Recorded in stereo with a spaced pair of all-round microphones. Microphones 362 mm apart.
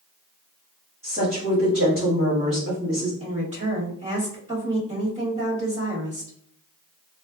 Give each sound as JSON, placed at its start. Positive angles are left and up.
{"t": 1.0, "sound": "a woman speaking", "side_deg": -35, "distance_m": 1.7}
{"t": 3.2, "sound": "a woman speaking", "side_deg": -20, "distance_m": 1.7}